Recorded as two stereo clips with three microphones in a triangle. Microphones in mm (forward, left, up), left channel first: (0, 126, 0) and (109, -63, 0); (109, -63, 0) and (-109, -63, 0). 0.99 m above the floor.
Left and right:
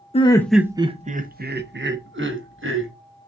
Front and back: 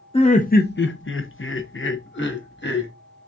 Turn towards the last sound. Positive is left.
turn(degrees=-35)